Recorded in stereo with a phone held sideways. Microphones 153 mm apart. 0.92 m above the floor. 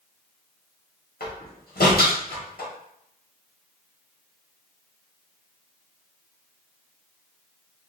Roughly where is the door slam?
Left.